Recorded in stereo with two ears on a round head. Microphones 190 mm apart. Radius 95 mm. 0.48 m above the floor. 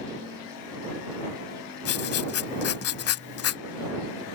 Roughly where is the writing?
Left.